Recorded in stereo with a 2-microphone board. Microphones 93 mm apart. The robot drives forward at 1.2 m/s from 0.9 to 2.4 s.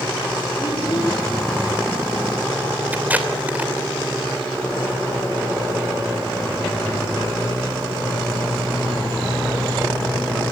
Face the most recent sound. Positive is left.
turn(degrees=-15)  # may be behind; listen again after turning